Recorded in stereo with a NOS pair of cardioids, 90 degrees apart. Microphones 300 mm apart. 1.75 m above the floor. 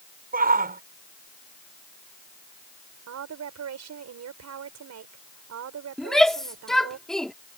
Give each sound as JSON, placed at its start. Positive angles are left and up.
{"t": 0.3, "sound": "a shout", "azimuth_deg": -30}
{"t": 3.1, "sound": "a woman speaking", "azimuth_deg": -60}
{"t": 6.0, "sound": "a shout", "azimuth_deg": 0}